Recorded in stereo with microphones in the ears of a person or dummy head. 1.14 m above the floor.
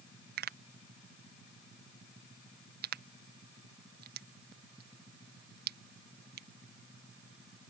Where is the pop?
50° right (ahead or behind).